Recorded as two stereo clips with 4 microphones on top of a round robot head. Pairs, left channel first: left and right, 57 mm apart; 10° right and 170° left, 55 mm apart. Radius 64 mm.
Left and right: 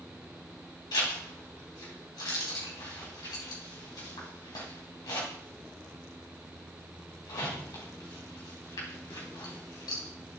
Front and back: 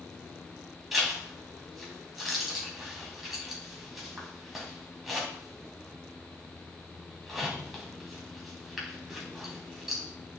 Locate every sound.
0.9 s a zipper: 85° left, 4 m